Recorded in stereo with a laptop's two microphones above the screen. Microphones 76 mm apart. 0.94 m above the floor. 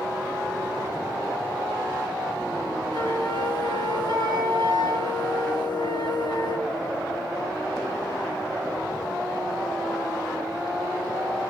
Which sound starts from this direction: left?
A flute, at 2.9 s.